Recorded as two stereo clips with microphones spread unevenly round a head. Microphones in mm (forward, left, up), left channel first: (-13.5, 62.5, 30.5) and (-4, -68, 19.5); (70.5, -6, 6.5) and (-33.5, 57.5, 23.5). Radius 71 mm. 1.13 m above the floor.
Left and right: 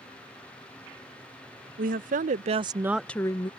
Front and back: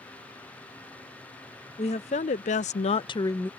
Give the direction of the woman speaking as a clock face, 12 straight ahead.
2 o'clock.